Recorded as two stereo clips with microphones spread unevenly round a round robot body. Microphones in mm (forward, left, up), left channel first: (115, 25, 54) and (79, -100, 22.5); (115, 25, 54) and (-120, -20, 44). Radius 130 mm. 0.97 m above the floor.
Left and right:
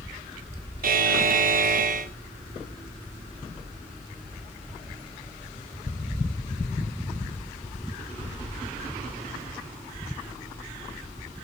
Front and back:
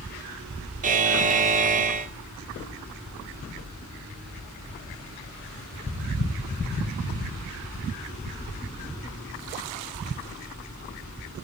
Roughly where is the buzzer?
Right.